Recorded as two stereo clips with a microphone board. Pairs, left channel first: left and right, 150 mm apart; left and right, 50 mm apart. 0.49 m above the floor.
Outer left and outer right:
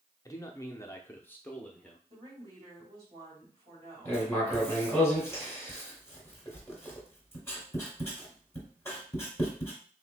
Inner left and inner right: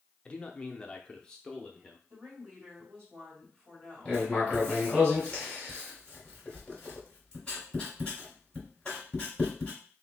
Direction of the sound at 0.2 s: 20° left (ahead or behind).